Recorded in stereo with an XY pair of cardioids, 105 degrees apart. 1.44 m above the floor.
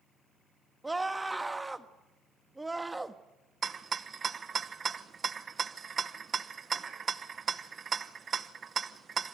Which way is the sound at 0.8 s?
15° right.